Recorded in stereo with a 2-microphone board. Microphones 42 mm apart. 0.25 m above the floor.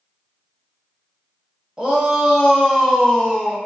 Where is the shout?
20° right (ahead or behind), 1.0 m; by 3.6 s 5° left (ahead or behind), 1.4 m.